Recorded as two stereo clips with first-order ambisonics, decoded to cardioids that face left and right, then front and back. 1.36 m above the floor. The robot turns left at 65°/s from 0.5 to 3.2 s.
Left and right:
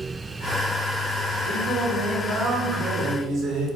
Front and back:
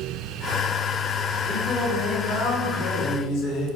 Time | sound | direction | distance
1.4 | singing | 70° left | 1.3 m